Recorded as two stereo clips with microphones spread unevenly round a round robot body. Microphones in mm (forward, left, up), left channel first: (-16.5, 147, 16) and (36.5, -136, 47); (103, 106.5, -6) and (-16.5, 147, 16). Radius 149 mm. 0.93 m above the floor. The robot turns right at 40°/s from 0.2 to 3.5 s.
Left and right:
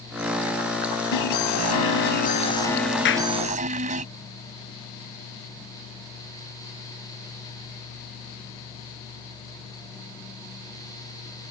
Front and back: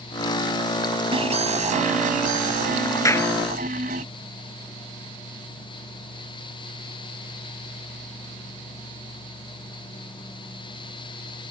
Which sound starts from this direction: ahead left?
A clap, at 3.0 s.